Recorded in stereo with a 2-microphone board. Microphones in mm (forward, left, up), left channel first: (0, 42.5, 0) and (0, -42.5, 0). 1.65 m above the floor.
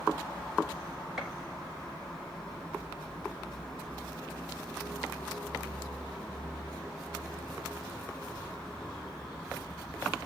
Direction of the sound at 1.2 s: 5° right (ahead or behind).